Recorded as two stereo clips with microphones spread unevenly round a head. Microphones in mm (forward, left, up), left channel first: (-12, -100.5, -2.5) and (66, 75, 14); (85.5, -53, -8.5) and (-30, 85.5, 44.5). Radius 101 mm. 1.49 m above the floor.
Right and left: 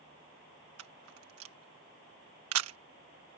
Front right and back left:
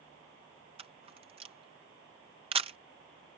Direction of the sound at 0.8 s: 70° left.